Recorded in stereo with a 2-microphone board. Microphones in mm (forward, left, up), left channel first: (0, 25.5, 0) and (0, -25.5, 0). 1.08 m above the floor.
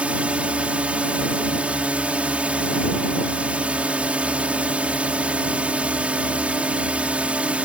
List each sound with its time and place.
0.0 s a drone: 25° right (ahead or behind)